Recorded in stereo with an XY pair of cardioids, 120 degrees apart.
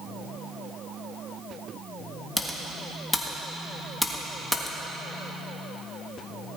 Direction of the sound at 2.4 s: 10° left.